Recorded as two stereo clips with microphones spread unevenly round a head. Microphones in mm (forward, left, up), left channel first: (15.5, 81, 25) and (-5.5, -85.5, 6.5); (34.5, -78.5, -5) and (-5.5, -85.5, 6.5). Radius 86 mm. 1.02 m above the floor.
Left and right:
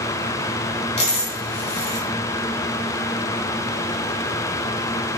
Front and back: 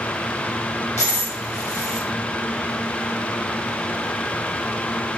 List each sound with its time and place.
1.0 s a dropped coin: 30° left, 1.4 m